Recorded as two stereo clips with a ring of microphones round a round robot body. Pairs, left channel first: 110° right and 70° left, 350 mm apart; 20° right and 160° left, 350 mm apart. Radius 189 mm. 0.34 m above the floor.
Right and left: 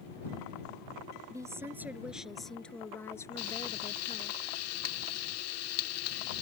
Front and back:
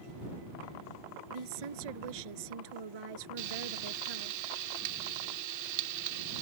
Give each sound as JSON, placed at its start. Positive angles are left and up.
{"t": 1.3, "sound": "a woman speaking", "azimuth_deg": 150}
{"t": 3.4, "sound": "frying", "azimuth_deg": -160}